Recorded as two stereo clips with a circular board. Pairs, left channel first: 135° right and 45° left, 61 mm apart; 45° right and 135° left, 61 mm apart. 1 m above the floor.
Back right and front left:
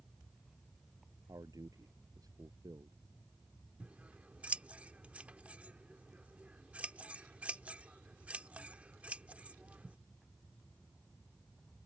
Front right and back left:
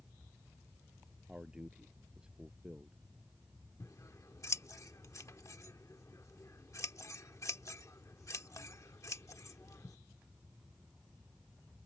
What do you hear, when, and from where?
1.3 s a man speaking: 60° left
3.8 s scissors: 25° right